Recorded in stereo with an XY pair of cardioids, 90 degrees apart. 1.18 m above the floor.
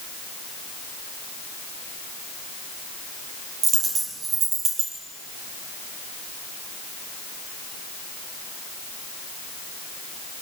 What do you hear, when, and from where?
3.6 s a dropped coin: 65° right, 5.5 m